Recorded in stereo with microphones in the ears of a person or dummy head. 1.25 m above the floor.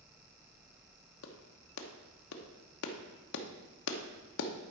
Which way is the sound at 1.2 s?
75° left (ahead or behind).